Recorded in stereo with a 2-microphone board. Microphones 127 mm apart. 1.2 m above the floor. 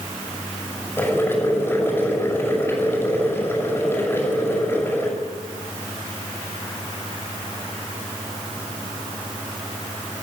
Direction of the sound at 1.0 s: 20° left (ahead or behind).